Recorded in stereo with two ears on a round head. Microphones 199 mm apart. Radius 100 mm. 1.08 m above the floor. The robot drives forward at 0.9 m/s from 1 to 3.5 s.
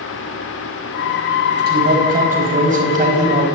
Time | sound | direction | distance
1.7 | a man speaking | 45° right (ahead or behind) | 5 m